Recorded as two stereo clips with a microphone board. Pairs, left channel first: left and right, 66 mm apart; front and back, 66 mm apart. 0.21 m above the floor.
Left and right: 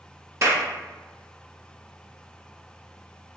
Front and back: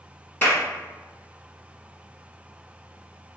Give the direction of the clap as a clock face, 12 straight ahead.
2 o'clock.